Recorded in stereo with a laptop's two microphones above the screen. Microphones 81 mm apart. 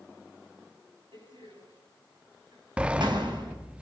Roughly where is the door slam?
Right.